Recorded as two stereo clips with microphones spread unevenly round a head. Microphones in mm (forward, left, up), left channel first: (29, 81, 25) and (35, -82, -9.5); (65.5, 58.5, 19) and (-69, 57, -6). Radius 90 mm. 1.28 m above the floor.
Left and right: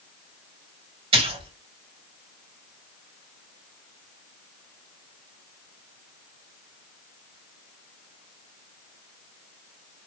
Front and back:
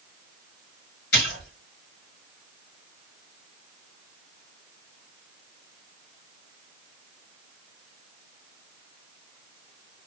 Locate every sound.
1.1 s a splash: 35° right, 1.6 m